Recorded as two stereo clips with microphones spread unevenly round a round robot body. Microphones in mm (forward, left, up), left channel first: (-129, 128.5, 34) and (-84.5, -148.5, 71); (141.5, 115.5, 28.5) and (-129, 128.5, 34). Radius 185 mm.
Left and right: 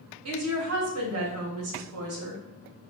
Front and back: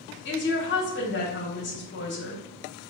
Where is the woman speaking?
45° right, 1.2 m.